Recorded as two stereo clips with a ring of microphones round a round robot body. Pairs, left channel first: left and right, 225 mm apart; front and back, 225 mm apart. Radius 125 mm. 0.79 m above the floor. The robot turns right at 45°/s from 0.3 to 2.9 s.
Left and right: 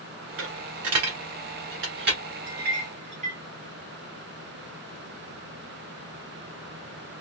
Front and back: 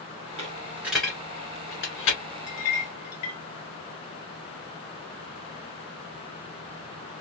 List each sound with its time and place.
0.4 s a dropped coin: 115° right, 1.7 m; by 2.2 s 35° right, 1.7 m
2.5 s a clink: 45° right, 0.9 m; by 3.4 s 25° right, 0.9 m